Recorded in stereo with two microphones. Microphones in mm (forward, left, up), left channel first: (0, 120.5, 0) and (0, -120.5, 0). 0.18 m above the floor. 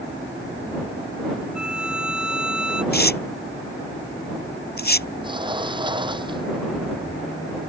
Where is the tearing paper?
40° left (ahead or behind).